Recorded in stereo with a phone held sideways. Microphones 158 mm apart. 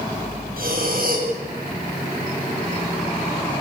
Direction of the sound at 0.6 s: 65° right (ahead or behind).